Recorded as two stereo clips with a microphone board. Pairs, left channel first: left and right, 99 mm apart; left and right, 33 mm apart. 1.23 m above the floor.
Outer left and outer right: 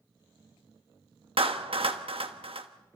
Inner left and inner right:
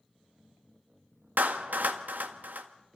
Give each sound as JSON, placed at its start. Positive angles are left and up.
{"t": 1.4, "sound": "a clap", "side_deg": -75, "distance_m": 1.2}